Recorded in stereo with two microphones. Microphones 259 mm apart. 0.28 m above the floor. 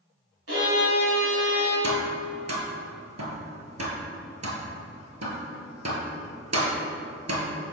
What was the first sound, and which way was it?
A violin, 55° right (ahead or behind).